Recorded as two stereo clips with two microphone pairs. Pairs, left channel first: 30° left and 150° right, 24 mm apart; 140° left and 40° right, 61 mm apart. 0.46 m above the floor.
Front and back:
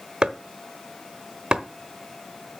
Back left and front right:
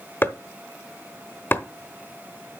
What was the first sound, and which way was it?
Chopping, 175° left.